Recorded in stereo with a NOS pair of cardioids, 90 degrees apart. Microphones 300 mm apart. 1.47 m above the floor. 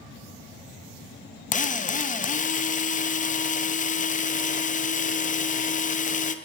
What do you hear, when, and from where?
1.5 s a drill: 25° left, 0.7 m